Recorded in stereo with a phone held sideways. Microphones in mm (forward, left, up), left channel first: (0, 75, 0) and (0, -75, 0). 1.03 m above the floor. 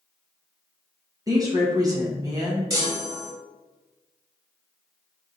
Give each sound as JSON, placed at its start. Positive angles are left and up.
{"t": 1.3, "sound": "a woman speaking", "side_deg": -25, "distance_m": 1.0}
{"t": 2.7, "sound": "a chime", "side_deg": -25, "distance_m": 0.9}